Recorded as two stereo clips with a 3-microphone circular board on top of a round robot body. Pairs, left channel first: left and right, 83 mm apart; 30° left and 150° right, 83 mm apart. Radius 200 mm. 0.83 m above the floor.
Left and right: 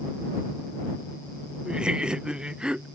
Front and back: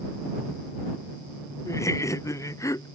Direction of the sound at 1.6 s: 15° right.